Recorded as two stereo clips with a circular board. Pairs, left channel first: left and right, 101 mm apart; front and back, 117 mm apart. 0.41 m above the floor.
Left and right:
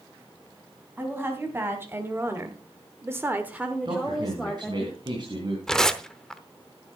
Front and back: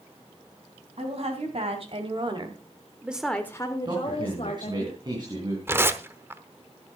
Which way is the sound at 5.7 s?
165° left.